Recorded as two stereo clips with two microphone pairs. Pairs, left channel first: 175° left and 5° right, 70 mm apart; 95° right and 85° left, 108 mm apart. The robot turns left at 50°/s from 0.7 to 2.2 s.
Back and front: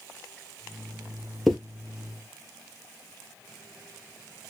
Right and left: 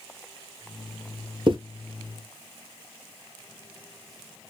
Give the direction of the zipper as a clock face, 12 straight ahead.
9 o'clock.